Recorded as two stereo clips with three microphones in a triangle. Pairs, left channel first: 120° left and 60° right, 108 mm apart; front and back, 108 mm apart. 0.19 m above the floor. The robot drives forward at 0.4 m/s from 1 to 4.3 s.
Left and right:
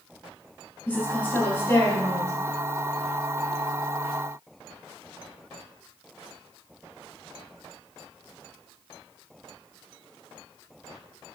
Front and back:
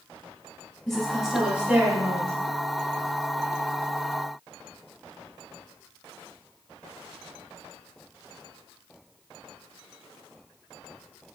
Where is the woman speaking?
85° left, 1.0 m; by 2.3 s 145° left, 1.2 m.